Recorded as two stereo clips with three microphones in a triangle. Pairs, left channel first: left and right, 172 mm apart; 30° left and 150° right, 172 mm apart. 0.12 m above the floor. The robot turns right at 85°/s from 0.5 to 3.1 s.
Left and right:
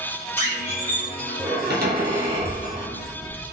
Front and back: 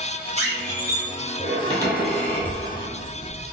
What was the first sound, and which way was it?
A squeak, 165° left.